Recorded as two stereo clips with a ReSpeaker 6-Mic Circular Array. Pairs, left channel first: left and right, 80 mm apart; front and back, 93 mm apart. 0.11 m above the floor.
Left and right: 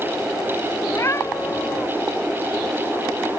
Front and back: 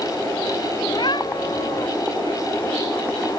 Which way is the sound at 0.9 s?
35° left.